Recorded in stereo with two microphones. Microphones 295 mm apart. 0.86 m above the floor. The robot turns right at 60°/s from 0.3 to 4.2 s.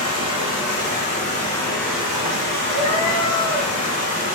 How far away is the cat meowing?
About 1.4 m.